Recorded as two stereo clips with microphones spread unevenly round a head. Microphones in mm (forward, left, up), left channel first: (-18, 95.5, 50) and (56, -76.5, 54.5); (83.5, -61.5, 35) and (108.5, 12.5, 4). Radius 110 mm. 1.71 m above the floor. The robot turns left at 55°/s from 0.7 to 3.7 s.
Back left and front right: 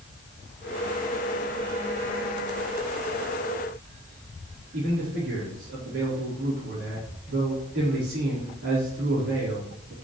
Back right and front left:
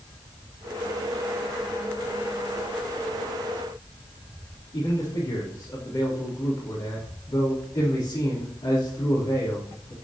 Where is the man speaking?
85° right, 4 m.